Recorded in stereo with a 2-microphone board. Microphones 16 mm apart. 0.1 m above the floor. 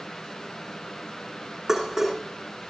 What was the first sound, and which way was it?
Dishes clattering, 20° right (ahead or behind).